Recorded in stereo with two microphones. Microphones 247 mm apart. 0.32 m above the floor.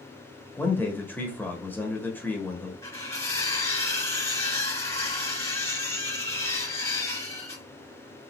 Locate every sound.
0.6 s a man speaking: 10° left (ahead or behind), 1.1 m
2.8 s cutlery clinking: 10° left (ahead or behind), 3 m